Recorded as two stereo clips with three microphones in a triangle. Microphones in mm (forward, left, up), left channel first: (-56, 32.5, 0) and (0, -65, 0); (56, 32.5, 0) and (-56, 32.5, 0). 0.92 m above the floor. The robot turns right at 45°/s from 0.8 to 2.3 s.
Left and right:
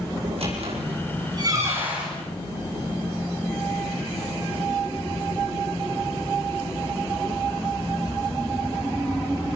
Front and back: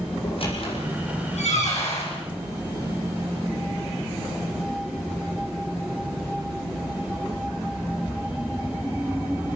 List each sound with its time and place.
0.2 s a squeak: 35° right, 7.5 m; by 2.1 s 25° left, 7.5 m